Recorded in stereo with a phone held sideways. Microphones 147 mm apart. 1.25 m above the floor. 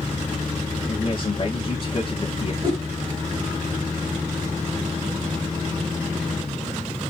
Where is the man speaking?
35° left (ahead or behind), 1.2 m.